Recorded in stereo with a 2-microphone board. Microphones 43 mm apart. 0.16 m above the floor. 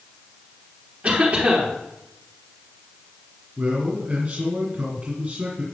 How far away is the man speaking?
About 2 m.